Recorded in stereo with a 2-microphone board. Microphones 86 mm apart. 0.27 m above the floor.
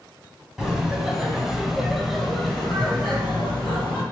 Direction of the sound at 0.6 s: 5° right (ahead or behind).